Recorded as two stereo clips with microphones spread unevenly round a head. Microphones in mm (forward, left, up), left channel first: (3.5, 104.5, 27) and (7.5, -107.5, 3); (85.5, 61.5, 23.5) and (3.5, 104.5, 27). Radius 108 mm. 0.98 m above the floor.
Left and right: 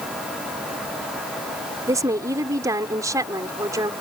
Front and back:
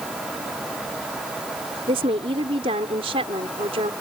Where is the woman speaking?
165° right.